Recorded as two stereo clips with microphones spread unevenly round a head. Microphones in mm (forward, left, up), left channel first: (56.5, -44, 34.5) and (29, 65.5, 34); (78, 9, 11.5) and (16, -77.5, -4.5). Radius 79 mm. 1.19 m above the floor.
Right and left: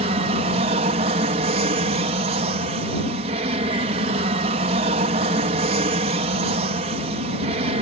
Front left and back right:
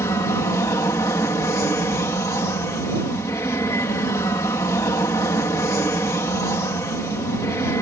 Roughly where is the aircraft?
Behind left.